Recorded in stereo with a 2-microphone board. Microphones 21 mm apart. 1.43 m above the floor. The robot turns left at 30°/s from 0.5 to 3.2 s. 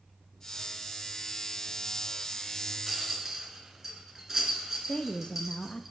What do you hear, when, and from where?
2.9 s a rattle: 10° right (ahead or behind), 3 m; by 5.9 s 20° right (ahead or behind), 3 m
4.9 s a woman speaking: 45° left (ahead or behind), 0.7 m